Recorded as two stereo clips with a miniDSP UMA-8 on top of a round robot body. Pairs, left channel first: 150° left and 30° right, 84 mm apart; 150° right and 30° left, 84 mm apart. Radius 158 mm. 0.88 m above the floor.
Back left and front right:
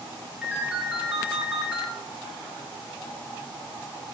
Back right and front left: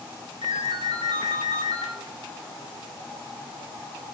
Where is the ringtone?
50° left, 2.5 m.